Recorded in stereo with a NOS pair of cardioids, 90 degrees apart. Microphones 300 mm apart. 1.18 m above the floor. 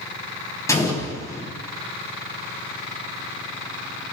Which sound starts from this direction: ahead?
An explosion, at 0.7 s.